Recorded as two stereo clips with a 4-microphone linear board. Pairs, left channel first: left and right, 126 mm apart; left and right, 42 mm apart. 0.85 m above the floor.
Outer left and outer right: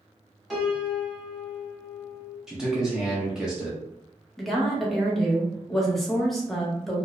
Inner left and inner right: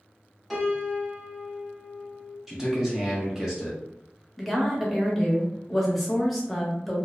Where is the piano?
Centre (ahead or behind), 0.9 m.